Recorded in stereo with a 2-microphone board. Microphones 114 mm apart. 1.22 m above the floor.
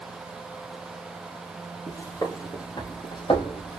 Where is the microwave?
I don't hear a microwave.